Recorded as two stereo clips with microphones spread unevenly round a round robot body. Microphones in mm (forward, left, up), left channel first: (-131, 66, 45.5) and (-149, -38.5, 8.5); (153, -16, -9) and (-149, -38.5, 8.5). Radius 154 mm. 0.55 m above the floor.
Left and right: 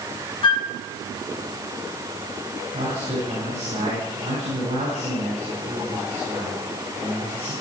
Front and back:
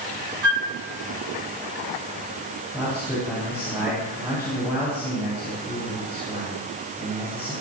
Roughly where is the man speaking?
Right.